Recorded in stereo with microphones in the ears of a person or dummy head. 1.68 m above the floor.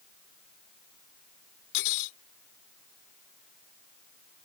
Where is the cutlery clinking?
65° left (ahead or behind).